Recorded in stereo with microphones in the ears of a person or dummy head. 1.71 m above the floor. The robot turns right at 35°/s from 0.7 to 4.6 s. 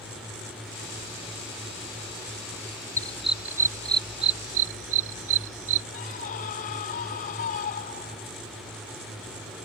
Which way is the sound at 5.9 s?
45° left (ahead or behind).